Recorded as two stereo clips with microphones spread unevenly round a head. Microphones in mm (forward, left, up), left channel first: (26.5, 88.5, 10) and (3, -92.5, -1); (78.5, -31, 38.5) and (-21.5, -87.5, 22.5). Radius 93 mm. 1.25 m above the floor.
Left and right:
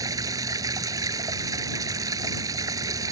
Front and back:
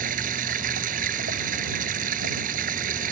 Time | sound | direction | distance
0.0 | running water | 170° right | ?